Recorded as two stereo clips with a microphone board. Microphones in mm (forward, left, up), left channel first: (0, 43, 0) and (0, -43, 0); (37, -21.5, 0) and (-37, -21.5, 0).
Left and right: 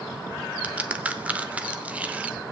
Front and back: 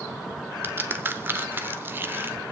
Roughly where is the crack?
Behind right.